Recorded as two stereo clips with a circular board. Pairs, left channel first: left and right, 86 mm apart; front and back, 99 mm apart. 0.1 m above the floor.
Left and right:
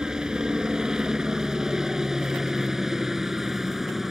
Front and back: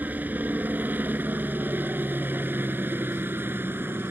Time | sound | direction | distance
0.0 | a helicopter | 155° right | ?